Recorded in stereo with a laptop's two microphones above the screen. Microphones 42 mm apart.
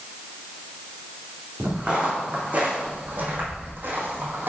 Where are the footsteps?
25° right (ahead or behind), 3 m; by 4.5 s 55° right (ahead or behind), 1.8 m.